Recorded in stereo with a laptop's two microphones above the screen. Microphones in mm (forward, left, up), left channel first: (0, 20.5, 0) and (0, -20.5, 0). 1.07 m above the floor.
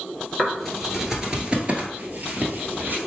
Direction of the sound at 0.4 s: 10° left (ahead or behind).